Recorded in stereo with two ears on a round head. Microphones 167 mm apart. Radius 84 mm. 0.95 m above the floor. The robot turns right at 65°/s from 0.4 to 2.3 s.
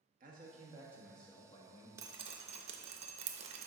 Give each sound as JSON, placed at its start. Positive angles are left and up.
{"t": 0.2, "sound": "a man speaking", "azimuth_deg": -45, "distance_m": 1.2}
{"t": 2.0, "sound": "dripping", "side_deg": -15, "distance_m": 0.6}